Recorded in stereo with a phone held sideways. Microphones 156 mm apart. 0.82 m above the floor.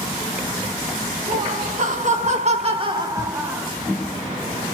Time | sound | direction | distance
1.3 | laughter | 50° right (ahead or behind) | 1.1 m